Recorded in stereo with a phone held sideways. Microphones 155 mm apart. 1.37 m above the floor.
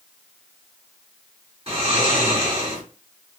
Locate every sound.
1.7 s snoring: 40° right (ahead or behind), 1.2 m